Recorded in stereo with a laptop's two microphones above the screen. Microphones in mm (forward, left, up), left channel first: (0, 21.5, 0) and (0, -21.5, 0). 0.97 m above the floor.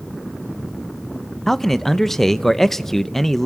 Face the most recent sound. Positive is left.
turn(degrees=10)  # may be behind; listen again after turning